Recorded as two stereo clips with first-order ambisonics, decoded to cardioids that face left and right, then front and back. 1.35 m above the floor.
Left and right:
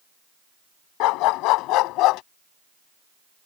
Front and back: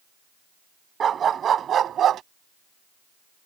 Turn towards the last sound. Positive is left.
turn(degrees=125)